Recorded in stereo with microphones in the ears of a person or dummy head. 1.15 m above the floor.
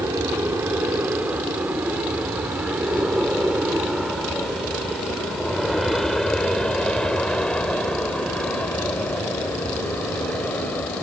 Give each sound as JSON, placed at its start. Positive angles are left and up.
{"t": 0.0, "sound": "an aircraft", "side_deg": -10}